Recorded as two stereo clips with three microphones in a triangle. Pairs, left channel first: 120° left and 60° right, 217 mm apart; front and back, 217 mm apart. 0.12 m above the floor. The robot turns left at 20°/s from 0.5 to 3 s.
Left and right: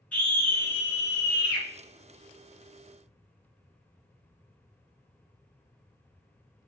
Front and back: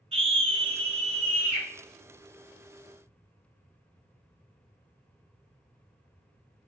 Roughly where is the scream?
Behind.